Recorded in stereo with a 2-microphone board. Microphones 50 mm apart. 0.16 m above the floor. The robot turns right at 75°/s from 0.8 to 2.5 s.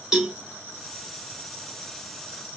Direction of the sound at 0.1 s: 10° right (ahead or behind).